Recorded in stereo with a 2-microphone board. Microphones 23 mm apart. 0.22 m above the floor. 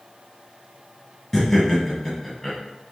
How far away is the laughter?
About 1.4 m.